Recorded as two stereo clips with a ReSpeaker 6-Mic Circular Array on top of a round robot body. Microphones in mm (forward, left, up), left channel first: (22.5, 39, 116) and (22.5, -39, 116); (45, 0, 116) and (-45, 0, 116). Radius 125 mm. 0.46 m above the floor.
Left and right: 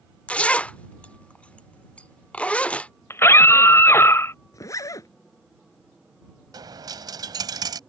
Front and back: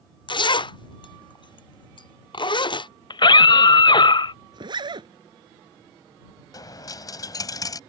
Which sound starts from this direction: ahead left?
A scream, at 3.1 s.